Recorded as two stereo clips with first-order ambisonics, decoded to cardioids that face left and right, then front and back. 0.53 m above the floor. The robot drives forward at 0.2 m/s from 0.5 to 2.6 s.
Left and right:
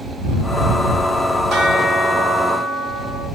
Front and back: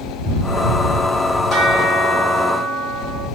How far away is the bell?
About 2 m.